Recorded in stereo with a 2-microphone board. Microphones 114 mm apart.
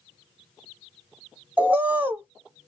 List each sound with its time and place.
1.6 s a bird: 15° right (ahead or behind), 0.6 m